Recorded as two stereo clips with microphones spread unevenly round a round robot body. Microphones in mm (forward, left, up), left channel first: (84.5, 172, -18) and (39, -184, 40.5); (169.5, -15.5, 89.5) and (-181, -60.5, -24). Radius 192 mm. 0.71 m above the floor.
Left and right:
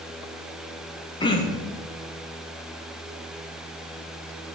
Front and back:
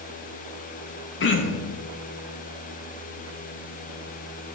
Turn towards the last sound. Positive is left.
turn(degrees=65)